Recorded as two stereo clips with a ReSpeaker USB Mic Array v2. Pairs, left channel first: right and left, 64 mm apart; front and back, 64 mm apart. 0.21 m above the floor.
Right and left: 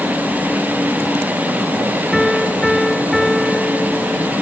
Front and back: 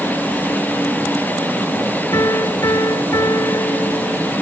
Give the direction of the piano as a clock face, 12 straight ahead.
12 o'clock.